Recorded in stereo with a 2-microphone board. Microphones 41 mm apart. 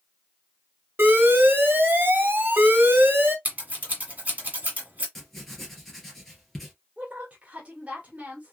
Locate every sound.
1.0 s an alarm: 55° right (ahead or behind), 1.1 m
3.5 s scissors: 35° right (ahead or behind), 1.6 m
5.2 s writing: 5° left (ahead or behind), 1.9 m
7.0 s a woman speaking: 35° right (ahead or behind), 1.5 m